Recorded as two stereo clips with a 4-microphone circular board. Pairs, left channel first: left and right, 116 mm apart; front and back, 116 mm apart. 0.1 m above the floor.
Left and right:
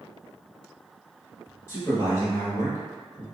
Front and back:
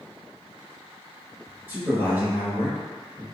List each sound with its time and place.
1.7 s a man speaking: 125° left, 1.2 m